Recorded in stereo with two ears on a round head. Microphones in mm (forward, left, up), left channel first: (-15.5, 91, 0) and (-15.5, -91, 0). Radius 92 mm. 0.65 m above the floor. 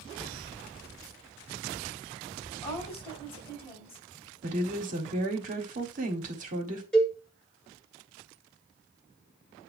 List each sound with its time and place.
2.5 s a woman speaking: 30° left (ahead or behind), 4 m
4.4 s a woman speaking: 40° right (ahead or behind), 1.6 m
6.9 s a cowbell: 5° left (ahead or behind), 1.8 m